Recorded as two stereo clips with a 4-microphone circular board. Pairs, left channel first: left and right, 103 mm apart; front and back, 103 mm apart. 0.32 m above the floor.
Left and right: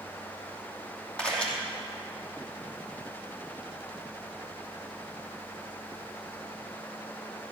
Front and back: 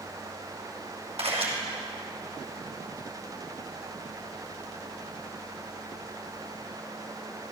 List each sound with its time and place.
1.2 s a camera shutter: 170° left, 2.5 m